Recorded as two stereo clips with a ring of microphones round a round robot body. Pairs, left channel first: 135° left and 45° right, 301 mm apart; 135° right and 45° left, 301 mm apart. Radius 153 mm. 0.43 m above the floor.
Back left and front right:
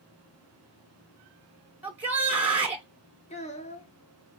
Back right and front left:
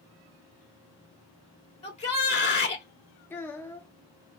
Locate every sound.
1.8 s a shout: 120° right, 1.0 m
3.3 s a child speaking: 155° left, 0.8 m